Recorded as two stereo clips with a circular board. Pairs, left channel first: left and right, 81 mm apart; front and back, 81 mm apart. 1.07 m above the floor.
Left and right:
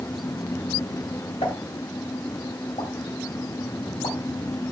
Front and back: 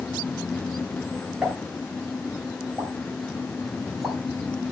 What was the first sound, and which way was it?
A pop, 105° left.